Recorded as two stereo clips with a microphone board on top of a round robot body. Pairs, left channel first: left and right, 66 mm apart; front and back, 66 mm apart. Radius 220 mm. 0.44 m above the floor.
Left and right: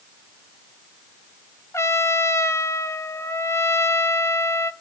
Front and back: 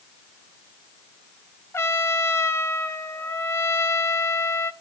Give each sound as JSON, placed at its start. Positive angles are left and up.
{"t": 1.7, "sound": "a trumpet", "azimuth_deg": 45, "distance_m": 1.4}